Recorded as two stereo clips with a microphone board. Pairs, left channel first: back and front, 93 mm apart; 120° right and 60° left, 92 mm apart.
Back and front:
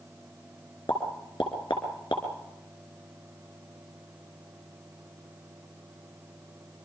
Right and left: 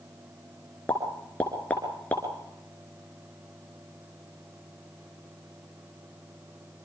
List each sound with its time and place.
0.9 s a pop: 165° left, 3 m